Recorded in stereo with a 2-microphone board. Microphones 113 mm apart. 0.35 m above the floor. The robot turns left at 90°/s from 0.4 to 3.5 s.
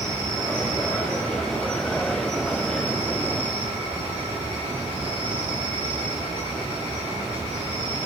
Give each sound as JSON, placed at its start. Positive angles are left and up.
{"t": 0.0, "sound": "an insect", "azimuth_deg": 175, "distance_m": 5.0}